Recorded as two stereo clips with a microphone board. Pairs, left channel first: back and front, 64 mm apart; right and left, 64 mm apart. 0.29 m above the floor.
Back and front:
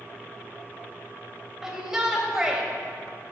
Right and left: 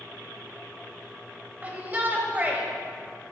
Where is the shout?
70° left, 1.5 m.